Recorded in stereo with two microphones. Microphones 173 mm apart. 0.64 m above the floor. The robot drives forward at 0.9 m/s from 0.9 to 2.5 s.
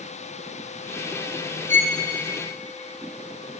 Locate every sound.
1.7 s a violin: 40° right (ahead or behind), 0.5 m; by 2.0 s 45° right (ahead or behind), 0.5 m